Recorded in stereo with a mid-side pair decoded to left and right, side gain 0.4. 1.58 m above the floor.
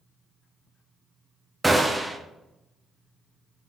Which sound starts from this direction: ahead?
A gunshot, at 1.6 s.